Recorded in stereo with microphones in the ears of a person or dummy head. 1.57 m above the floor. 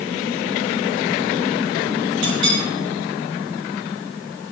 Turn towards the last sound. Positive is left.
turn(degrees=-75)  # may be behind; listen again after turning